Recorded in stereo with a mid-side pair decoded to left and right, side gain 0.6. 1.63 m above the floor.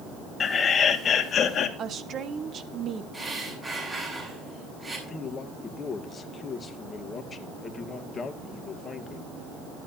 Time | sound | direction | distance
0.4 | laughter | 35° left | 2 m
1.8 | a woman speaking | 45° right | 1.7 m
3.1 | breathing | 25° right | 7.5 m
5.1 | a man speaking | 30° left | 2.5 m